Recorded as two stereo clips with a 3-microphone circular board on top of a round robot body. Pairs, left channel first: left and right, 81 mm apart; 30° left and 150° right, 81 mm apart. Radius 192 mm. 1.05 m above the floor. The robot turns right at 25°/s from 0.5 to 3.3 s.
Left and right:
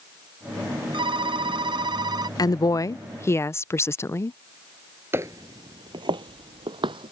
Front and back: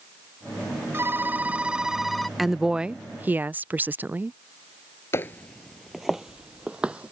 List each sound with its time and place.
0.9 s a phone ringing: 90° right; by 2.3 s 60° right
2.4 s a woman speaking: 120° left; by 4.4 s 145° left
5.1 s footsteps: 25° right; by 7.1 s 75° right